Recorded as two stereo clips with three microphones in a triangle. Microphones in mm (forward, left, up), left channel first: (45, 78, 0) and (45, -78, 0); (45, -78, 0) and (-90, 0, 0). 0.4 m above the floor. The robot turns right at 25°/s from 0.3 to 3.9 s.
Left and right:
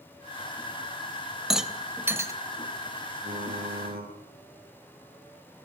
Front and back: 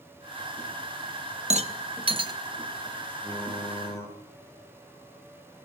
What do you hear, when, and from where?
1.5 s a rattle: straight behind, 1.3 m; by 2.3 s 155° right, 1.3 m
3.2 s typing on a keyboard: 115° right, 9 m; by 4.1 s 100° right, 9 m